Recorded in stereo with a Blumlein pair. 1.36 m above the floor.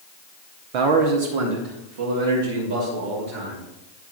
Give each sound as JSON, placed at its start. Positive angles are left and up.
{"t": 0.7, "sound": "a man speaking", "azimuth_deg": -45, "distance_m": 0.9}